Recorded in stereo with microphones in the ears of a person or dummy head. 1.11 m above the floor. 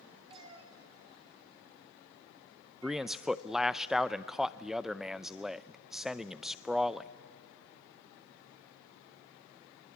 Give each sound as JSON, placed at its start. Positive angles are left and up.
{"t": 0.3, "sound": "a cat meowing", "side_deg": -30, "distance_m": 1.8}
{"t": 2.8, "sound": "a man speaking", "side_deg": -5, "distance_m": 0.5}